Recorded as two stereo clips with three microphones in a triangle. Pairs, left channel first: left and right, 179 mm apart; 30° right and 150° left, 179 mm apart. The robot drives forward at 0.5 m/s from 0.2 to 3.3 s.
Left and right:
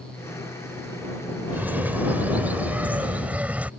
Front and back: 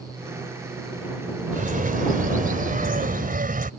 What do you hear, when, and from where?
1.5 s a bird: 170° right